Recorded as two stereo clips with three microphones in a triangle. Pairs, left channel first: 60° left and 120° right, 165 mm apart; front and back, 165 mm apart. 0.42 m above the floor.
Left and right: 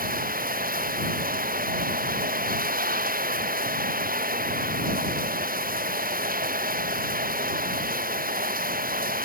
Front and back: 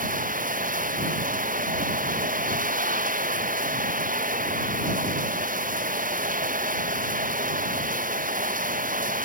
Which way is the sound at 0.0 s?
145° right.